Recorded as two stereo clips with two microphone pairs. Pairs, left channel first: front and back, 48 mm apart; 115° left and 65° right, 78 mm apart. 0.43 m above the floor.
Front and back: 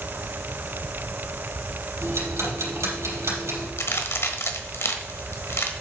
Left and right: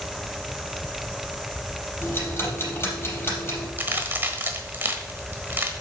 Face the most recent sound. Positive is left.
turn(degrees=-5)